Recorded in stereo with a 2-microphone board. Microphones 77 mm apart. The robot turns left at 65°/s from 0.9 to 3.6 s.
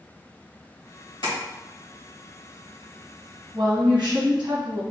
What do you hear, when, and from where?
1.2 s tapping: 80° left, 1.8 m; by 1.4 s 75° left (ahead or behind), 1.8 m
3.5 s a woman speaking: 70° right (ahead or behind), 1.8 m; by 4.8 s 75° right (ahead or behind), 1.8 m